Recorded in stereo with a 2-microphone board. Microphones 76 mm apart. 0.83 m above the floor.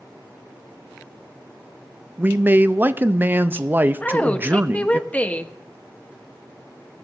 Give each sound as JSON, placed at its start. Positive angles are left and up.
{"t": 2.2, "sound": "a man speaking", "side_deg": -25, "distance_m": 0.5}
{"t": 4.0, "sound": "a woman speaking", "side_deg": 20, "distance_m": 0.9}